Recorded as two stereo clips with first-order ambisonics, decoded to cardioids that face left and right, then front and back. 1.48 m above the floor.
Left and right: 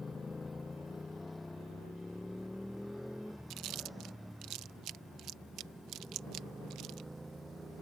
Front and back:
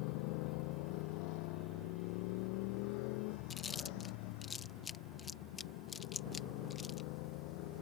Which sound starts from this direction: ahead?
A motorcycle, at 0.0 s.